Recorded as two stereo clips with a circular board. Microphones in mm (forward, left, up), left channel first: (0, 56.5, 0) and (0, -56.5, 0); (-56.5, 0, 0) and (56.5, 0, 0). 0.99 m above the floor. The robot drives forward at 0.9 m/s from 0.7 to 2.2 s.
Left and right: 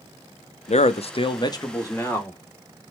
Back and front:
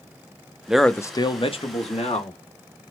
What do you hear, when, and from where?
0.7 s a man speaking: 80° left, 0.5 m; by 2.4 s 160° left, 1.4 m